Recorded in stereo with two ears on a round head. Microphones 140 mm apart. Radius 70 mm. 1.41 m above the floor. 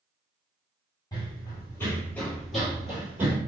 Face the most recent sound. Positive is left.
turn(degrees=-15)  # may be behind; listen again after turning